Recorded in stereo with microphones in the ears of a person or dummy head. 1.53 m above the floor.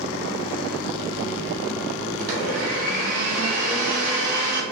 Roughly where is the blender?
Right.